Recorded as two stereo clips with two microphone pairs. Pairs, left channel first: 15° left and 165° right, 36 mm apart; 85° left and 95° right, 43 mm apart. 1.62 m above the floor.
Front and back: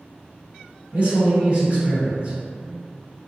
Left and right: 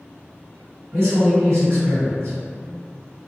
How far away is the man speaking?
About 1.7 m.